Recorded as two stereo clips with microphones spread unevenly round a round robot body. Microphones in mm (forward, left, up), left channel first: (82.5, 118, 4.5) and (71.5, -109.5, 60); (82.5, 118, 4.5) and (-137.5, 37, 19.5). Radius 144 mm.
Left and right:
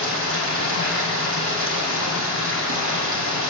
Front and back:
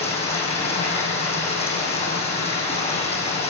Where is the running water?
65° right, 6.5 m.